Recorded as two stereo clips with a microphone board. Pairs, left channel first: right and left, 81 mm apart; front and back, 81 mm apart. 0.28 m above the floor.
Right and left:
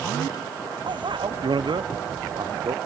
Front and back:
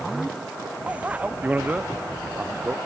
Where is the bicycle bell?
105° left; by 2.8 s 115° left.